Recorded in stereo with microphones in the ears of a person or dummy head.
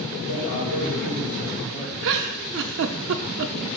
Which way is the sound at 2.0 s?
70° right (ahead or behind).